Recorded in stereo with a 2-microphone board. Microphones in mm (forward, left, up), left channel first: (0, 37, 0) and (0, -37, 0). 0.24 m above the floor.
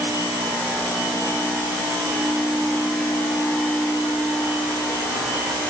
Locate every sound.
Only background noise.